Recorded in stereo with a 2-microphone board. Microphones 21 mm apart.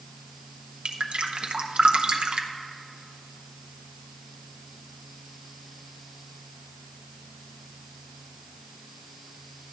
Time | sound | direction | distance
0.8 | dripping | 60° right (ahead or behind) | 0.7 m